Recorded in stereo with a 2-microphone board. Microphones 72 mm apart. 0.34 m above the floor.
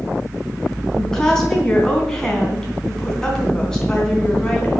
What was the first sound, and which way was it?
A woman speaking, 10° left (ahead or behind).